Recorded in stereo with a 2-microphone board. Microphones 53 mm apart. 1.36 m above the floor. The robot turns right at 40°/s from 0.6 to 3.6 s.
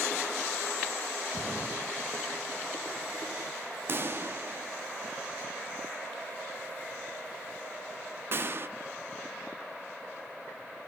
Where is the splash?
65° left (ahead or behind), 1.6 m; by 3.5 s 20° right (ahead or behind), 1.6 m.